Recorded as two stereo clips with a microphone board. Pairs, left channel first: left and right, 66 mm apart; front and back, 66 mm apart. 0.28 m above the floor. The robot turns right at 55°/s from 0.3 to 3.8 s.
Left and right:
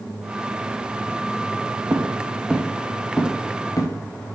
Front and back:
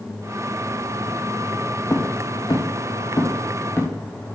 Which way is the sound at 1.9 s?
45° right.